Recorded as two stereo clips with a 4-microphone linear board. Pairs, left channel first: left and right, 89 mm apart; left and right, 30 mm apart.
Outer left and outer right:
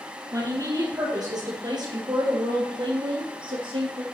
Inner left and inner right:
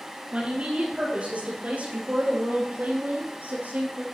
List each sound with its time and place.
0.3 s a woman speaking: 40° right (ahead or behind), 4 m; by 4.0 s 70° right (ahead or behind), 3.5 m